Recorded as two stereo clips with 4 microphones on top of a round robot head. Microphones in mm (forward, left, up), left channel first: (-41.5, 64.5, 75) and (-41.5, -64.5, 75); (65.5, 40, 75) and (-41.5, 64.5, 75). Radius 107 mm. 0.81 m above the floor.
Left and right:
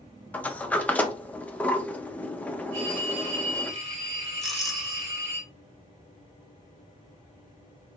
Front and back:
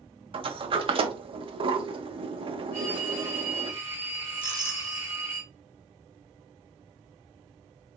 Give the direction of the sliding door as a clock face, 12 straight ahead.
6 o'clock.